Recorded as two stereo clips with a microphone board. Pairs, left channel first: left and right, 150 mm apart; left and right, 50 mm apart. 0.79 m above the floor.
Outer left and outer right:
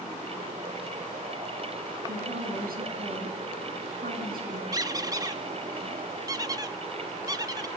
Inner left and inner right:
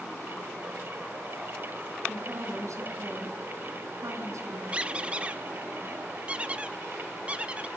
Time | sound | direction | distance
2.1 | a woman speaking | 80° right | 7.5 m
4.7 | a squeak | 25° right (ahead or behind) | 0.8 m